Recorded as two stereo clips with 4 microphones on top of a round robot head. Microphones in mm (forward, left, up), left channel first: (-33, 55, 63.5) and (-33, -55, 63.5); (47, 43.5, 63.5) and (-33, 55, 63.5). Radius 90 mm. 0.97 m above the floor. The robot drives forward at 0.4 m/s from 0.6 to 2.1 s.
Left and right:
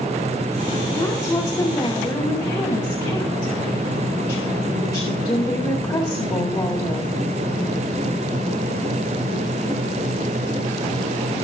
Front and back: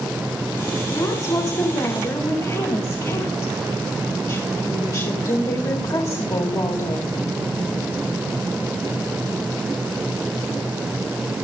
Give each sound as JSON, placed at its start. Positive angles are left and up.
{"t": 0.9, "sound": "a woman speaking", "azimuth_deg": 30, "distance_m": 2.5}